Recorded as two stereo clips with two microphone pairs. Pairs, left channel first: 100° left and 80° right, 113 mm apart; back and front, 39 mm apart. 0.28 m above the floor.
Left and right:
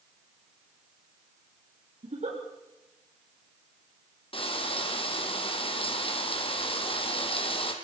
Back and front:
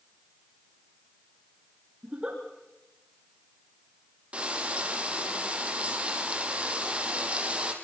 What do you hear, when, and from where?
2.0 s a giggle: 65° right, 6 m
4.3 s frying: 60° left, 3.5 m